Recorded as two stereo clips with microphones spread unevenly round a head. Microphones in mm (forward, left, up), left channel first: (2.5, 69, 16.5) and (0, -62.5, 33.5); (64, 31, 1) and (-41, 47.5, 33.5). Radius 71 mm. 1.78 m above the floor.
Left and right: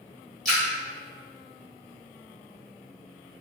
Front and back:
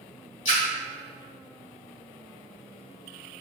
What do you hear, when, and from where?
0.5 s a splash: 5° left, 1.9 m